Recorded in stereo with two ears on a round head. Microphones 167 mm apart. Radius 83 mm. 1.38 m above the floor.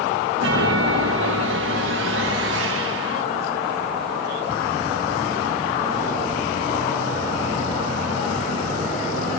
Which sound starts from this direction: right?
A chime, at 0.4 s.